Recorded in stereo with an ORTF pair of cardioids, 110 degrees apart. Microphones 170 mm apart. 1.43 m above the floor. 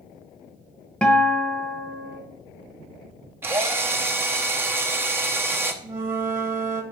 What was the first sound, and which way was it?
A guitar, 5° left.